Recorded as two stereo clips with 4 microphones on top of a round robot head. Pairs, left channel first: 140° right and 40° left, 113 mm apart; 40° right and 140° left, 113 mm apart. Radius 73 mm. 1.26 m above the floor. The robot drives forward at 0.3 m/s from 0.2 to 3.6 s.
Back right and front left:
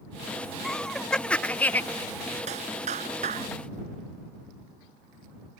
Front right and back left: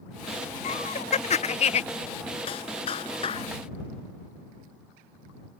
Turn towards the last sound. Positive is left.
turn(degrees=10)